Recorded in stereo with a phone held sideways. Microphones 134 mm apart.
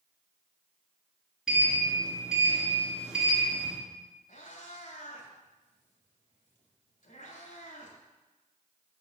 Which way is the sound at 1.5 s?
5° right (ahead or behind).